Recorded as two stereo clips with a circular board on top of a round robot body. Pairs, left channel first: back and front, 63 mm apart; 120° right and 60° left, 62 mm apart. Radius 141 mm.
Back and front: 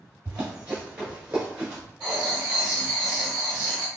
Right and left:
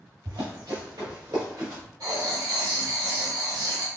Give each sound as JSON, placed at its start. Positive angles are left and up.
{"t": 0.2, "sound": "running footsteps", "azimuth_deg": 70, "distance_m": 1.6}
{"t": 2.0, "sound": "writing", "azimuth_deg": 75, "distance_m": 1.0}